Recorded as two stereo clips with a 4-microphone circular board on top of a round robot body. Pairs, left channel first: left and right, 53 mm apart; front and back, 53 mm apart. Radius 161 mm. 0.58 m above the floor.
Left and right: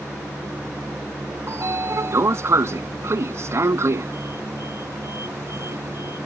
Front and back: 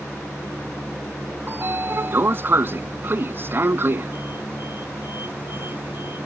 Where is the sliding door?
130° right.